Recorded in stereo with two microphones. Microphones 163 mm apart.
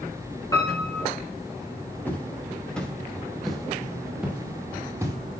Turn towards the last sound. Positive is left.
turn(degrees=-15)  # may be behind; listen again after turning